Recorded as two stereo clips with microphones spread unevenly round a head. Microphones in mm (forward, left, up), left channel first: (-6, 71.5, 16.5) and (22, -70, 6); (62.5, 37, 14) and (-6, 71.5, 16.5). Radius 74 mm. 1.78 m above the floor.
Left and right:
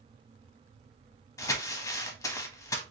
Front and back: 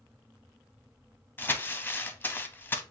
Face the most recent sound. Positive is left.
turn(degrees=35)